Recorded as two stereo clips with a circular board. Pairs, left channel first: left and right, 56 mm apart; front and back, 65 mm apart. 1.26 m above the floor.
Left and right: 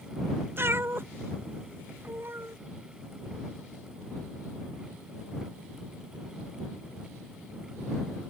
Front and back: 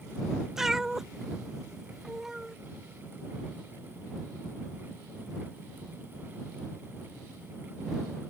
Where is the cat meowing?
100° right.